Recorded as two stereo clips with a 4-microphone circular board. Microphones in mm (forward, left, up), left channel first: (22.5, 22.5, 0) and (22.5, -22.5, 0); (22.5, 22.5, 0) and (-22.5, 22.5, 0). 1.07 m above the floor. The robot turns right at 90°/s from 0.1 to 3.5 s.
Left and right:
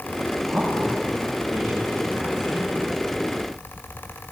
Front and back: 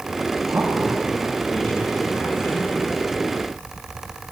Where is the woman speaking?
175° left, 4.5 m; by 2.7 s 15° left, 4.5 m.